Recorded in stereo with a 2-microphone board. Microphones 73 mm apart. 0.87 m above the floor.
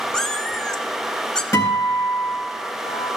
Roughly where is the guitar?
Left.